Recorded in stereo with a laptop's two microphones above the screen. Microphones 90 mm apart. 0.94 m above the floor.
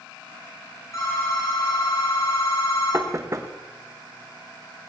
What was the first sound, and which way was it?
A phone ringing, 35° left (ahead or behind).